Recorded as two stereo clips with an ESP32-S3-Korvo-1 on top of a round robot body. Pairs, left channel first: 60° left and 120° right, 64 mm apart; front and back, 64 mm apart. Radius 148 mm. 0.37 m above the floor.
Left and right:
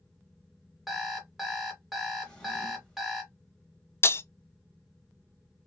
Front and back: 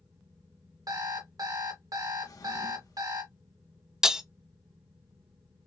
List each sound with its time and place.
0.9 s an alarm clock: 155° left, 1.2 m
2.2 s a drawer: 15° right, 1.3 m
4.0 s breaking glass: 100° left, 0.5 m